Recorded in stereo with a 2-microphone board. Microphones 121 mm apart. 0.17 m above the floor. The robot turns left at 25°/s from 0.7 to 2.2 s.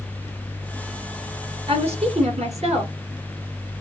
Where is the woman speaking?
55° right (ahead or behind), 2.5 m; by 2.9 s 60° right (ahead or behind), 2.5 m.